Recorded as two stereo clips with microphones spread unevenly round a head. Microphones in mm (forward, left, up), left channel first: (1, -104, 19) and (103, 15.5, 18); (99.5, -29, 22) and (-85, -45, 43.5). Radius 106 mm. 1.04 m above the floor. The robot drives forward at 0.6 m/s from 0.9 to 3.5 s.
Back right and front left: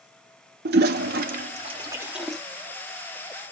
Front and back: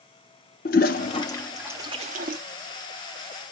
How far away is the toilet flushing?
About 0.6 m.